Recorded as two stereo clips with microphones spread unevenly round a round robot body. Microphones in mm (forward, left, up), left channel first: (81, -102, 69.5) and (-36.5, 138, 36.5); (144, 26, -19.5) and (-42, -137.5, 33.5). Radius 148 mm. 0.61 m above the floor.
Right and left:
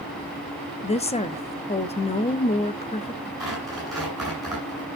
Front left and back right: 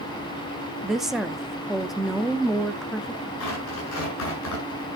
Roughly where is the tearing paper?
Ahead left.